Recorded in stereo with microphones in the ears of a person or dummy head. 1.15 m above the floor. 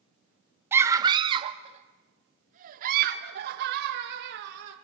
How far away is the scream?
About 1.3 m.